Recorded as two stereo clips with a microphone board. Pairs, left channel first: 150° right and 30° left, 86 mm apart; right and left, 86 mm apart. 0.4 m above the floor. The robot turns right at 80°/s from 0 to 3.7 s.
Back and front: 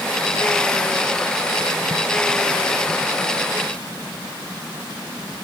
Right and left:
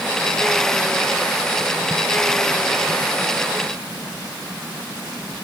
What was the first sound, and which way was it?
Only background noise.